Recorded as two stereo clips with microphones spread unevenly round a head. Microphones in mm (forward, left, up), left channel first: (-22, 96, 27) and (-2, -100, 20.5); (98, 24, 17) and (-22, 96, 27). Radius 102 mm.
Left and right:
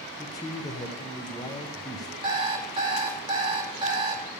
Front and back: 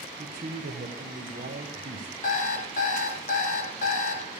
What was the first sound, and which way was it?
A man speaking, 165° left.